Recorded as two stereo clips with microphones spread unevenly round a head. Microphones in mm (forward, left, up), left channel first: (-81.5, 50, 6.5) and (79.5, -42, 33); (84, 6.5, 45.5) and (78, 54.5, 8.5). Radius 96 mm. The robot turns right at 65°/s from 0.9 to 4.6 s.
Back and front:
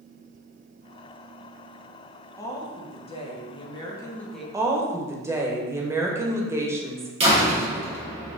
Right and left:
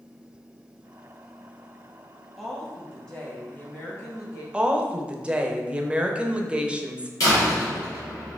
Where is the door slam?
90° right, 1.4 m.